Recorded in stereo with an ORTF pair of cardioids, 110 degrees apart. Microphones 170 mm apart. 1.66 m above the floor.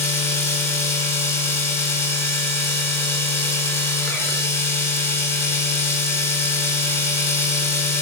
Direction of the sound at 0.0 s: 15° left.